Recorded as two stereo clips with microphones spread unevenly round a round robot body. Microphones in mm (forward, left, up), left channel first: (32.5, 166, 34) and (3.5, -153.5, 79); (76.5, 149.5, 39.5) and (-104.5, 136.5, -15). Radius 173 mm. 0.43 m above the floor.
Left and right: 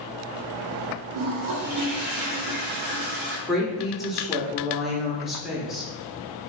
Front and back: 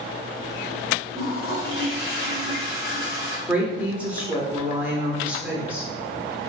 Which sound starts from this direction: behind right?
A toilet flushing, at 1.1 s.